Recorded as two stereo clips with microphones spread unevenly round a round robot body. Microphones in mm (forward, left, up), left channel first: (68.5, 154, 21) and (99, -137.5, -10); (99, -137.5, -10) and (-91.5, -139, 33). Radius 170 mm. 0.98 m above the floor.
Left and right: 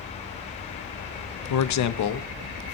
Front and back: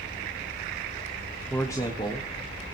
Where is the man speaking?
75° left, 0.8 m; by 2.8 s 65° left, 2 m.